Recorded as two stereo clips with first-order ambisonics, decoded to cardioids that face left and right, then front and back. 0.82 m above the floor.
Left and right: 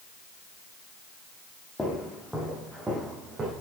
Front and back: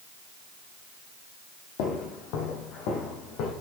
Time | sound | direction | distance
1.8 | footsteps | 10° left | 1.8 m